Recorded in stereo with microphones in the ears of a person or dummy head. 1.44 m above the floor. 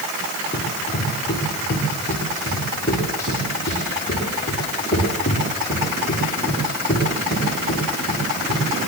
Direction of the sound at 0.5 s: 20° left (ahead or behind).